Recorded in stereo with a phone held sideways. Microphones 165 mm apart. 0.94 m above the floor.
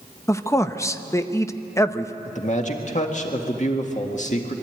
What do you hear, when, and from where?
0.3 s a man speaking: 20° left (ahead or behind), 0.7 m
2.2 s a man speaking: 45° left (ahead or behind), 1.9 m